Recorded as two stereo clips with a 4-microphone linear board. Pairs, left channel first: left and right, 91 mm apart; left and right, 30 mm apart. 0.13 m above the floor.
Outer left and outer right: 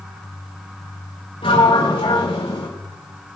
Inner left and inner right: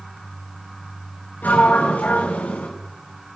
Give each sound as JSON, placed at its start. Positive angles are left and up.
{"t": 1.4, "sound": "a sliding door", "side_deg": 85, "distance_m": 5.0}